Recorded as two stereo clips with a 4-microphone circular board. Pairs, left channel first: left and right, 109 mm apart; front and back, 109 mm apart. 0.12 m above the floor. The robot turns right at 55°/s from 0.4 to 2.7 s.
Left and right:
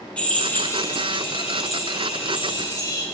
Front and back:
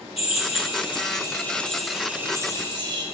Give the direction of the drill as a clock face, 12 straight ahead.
12 o'clock.